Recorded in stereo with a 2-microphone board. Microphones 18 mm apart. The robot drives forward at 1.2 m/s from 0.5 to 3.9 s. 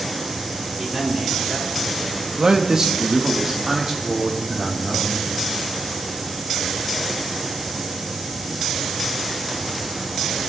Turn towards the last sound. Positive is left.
turn(degrees=-20)  # may be behind; listen again after turning